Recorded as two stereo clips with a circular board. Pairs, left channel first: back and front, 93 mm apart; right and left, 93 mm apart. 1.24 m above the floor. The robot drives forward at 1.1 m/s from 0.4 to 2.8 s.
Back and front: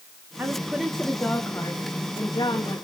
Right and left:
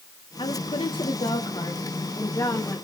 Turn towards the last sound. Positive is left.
turn(degrees=-145)